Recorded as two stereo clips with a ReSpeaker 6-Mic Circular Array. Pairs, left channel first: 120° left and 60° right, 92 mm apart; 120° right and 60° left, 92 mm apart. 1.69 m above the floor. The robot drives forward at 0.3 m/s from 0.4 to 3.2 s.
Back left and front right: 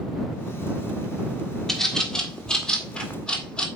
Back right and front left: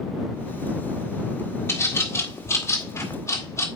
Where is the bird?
160° right, 1.5 m; by 3.7 s 165° right, 1.8 m.